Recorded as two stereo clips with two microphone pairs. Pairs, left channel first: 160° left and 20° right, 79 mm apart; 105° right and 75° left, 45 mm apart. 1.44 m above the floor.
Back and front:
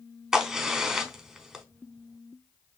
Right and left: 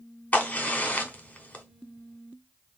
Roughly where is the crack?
Right.